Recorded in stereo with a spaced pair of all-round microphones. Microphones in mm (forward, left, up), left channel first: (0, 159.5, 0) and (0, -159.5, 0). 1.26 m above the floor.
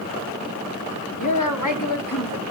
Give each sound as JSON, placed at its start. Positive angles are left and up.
{"t": 1.2, "sound": "a woman speaking", "side_deg": 60, "distance_m": 4.0}